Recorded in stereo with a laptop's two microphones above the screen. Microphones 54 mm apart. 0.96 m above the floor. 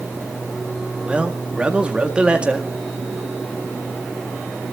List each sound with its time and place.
1.1 s a man speaking: 20° right (ahead or behind), 1.8 m